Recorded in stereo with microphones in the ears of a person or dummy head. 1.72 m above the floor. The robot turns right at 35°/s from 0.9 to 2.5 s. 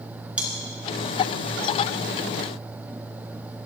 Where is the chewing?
10° right (ahead or behind), 3.5 m.